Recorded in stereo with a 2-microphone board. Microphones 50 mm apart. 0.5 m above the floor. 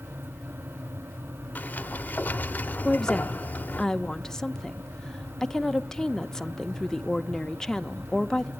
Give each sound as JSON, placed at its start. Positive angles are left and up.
{"t": 1.6, "sound": "a sliding door", "side_deg": 35, "distance_m": 0.6}
{"t": 2.9, "sound": "a woman speaking", "side_deg": 10, "distance_m": 0.7}